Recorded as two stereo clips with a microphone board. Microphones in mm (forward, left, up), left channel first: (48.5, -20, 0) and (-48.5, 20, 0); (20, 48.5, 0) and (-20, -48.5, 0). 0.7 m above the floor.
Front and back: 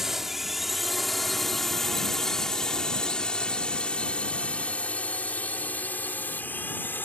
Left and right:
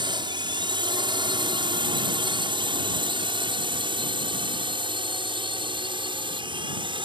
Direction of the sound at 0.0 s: 115° right.